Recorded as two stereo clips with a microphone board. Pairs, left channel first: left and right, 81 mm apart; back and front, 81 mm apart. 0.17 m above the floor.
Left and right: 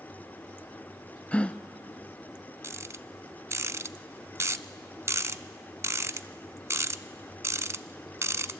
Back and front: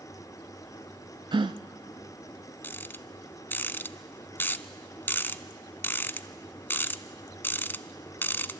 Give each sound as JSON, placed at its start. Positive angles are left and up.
{"t": 1.3, "sound": "a gasp", "azimuth_deg": 15, "distance_m": 0.5}
{"t": 2.6, "sound": "a rattle", "azimuth_deg": -125, "distance_m": 0.6}